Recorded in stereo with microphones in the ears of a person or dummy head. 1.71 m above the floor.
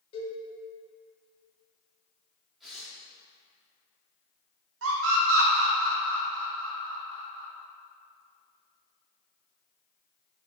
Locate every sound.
0.1 s a cowbell: 40° left (ahead or behind), 2 m
2.6 s tearing paper: 5° left (ahead or behind), 2 m
4.8 s a scream: 75° right (ahead or behind), 1.3 m